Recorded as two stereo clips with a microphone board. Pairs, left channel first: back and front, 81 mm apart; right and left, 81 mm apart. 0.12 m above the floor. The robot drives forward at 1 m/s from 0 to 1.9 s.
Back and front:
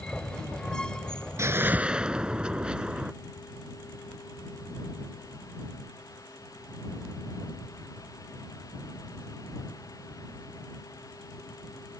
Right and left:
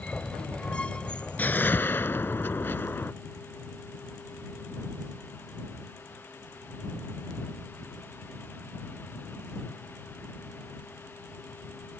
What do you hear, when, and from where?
1.4 s a whoosh: 35° right; by 3.1 s 65° right